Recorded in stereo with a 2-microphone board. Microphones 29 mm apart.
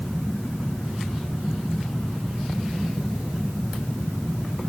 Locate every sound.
Only background noise.